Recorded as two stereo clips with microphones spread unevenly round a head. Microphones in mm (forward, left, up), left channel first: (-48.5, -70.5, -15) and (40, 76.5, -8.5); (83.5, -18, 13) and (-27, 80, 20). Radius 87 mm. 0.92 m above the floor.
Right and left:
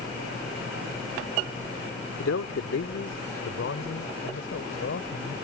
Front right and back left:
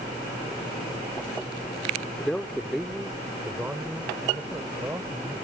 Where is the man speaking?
125° right; by 5.3 s 145° right.